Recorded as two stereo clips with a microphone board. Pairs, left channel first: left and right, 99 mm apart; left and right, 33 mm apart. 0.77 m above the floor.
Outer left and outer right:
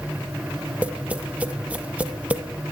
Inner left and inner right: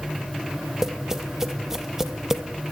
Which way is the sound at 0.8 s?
15° right (ahead or behind).